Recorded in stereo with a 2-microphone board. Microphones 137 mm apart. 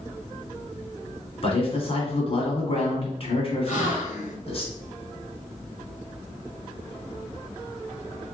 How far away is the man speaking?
About 1.6 m.